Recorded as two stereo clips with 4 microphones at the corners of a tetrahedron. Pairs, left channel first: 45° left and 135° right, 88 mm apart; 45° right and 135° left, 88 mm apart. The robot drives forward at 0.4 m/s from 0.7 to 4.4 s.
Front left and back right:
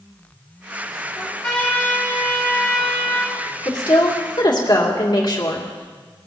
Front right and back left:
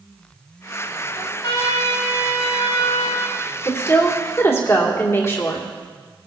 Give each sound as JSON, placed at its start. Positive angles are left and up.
{"t": 1.1, "sound": "a trumpet", "azimuth_deg": -35, "distance_m": 3.5}
{"t": 3.6, "sound": "a woman speaking", "azimuth_deg": 10, "distance_m": 2.5}